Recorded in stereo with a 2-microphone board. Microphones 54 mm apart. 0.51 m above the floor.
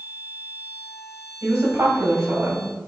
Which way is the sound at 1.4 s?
70° right (ahead or behind).